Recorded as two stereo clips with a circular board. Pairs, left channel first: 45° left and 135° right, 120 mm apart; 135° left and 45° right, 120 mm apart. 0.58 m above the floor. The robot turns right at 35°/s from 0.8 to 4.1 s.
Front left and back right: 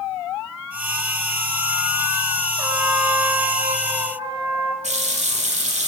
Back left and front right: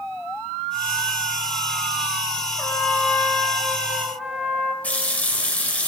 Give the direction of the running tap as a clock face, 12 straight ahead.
5 o'clock.